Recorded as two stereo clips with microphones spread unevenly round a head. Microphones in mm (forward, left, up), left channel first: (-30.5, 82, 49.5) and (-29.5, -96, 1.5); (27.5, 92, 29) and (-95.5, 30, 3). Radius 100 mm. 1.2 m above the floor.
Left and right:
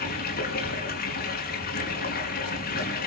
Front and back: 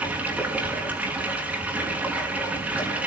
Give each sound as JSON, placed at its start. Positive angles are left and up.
{"t": 0.0, "sound": "running water", "azimuth_deg": 125, "distance_m": 6.5}